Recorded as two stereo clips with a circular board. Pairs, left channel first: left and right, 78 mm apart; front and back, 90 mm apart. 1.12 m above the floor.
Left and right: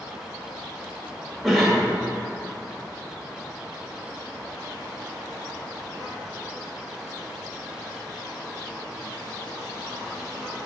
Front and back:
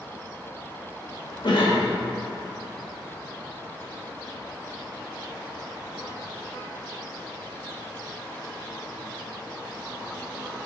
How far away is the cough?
About 1.9 m.